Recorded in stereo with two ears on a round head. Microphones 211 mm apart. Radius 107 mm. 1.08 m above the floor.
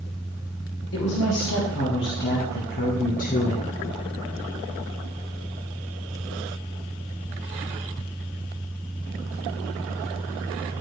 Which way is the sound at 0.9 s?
50° left (ahead or behind).